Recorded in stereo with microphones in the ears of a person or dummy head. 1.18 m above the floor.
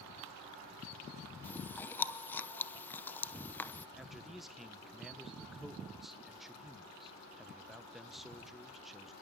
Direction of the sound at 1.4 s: 5° left (ahead or behind).